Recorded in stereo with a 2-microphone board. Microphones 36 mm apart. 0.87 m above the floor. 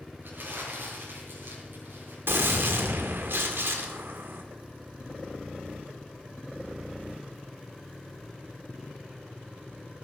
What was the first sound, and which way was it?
Crumpling, 70° right (ahead or behind).